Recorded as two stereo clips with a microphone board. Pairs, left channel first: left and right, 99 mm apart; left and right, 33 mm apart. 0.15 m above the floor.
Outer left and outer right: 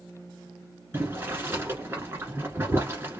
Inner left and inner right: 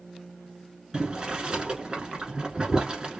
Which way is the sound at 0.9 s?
25° right (ahead or behind).